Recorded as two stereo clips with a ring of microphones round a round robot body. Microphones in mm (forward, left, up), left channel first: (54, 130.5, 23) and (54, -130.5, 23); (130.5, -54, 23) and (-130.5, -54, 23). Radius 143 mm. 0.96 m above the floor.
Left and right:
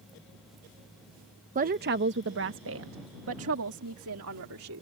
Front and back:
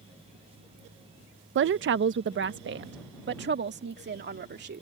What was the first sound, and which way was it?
A woman speaking, 145° right.